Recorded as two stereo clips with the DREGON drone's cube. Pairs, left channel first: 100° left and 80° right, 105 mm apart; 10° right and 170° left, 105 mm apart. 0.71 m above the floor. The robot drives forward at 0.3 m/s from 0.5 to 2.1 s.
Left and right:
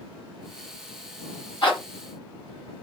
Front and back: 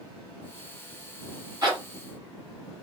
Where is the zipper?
120° left, 1.7 m; by 1.8 s 125° left, 1.7 m.